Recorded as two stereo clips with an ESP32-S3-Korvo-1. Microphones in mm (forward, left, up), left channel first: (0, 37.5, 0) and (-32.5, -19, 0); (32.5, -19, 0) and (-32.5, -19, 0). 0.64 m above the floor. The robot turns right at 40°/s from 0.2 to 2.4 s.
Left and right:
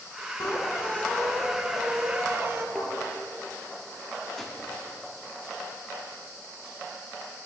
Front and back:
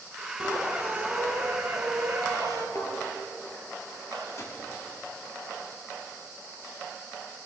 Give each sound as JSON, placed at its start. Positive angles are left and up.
{"t": 0.4, "sound": "a squeak", "azimuth_deg": 110, "distance_m": 1.2}
{"t": 2.8, "sound": "a thud", "azimuth_deg": -25, "distance_m": 2.0}
{"t": 4.4, "sound": "a gunshot", "azimuth_deg": -25, "distance_m": 1.4}